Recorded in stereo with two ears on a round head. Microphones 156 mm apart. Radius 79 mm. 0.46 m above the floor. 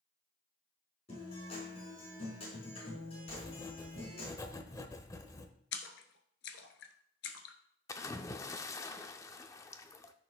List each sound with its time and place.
1.1 s a guitar: 35° left (ahead or behind), 4.5 m
3.3 s writing: 20° left (ahead or behind), 0.9 m
5.7 s a splash: 75° left (ahead or behind), 1.1 m
7.9 s a splash: 20° left (ahead or behind), 0.5 m